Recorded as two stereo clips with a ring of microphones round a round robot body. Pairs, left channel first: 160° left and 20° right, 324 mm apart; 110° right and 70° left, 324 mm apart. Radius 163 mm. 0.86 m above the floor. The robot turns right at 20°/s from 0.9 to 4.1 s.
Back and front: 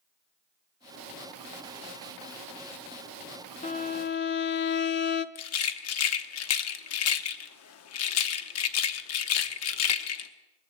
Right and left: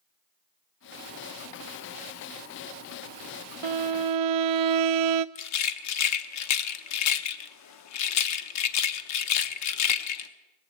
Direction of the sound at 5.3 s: 155° right.